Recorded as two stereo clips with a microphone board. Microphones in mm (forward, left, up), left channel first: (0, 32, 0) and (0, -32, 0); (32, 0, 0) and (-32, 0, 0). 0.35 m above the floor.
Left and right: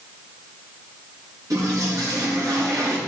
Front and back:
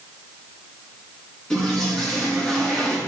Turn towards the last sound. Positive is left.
turn(degrees=-75)